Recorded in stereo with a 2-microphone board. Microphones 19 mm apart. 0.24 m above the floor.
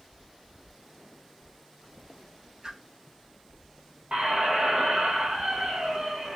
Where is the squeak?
70° right (ahead or behind), 1.5 m.